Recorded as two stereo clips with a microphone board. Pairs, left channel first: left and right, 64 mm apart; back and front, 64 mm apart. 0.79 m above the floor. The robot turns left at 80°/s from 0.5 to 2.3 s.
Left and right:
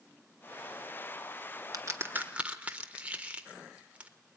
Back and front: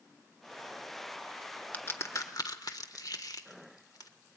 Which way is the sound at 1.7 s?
115° right.